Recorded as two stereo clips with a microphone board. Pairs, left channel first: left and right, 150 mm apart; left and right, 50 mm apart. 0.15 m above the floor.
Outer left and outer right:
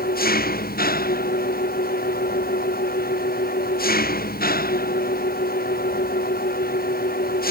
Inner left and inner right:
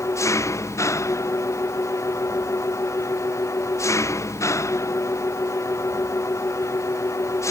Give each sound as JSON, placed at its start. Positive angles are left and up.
{"t": 0.0, "sound": "an engine running", "side_deg": 85}